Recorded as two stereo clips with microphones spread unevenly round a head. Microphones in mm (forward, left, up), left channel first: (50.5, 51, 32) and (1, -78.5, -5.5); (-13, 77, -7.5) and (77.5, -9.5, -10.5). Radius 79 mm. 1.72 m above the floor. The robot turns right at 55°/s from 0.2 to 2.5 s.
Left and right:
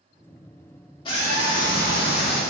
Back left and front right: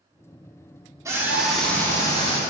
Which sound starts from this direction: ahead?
A scream, at 1.1 s.